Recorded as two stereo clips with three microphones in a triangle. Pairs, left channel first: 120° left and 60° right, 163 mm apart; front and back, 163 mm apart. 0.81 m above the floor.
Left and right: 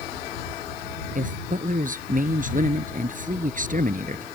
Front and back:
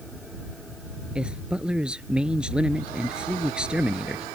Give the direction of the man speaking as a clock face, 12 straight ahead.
3 o'clock.